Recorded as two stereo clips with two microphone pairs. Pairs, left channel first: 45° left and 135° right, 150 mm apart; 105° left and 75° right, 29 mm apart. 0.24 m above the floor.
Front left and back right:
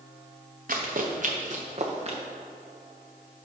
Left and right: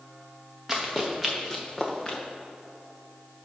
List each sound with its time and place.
0.7 s running footsteps: 155° right, 1.7 m; by 2.2 s 175° left, 1.7 m